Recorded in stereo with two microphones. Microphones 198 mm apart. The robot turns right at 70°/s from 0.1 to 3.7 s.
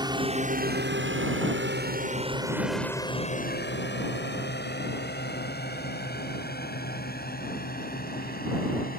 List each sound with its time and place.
0.0 s a drone: 20° right (ahead or behind); by 9.0 s 45° left (ahead or behind)